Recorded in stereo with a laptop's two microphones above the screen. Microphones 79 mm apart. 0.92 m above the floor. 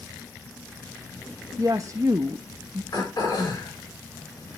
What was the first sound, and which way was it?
A woman speaking, 40° right (ahead or behind).